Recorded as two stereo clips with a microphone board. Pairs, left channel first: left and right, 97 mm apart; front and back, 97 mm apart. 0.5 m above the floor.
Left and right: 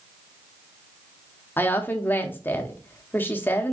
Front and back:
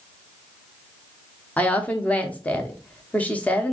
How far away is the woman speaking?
About 0.7 m.